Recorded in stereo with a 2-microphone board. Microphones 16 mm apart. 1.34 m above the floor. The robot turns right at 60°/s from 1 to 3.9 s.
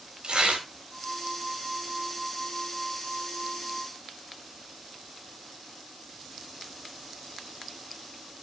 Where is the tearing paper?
85° right, 4.5 m.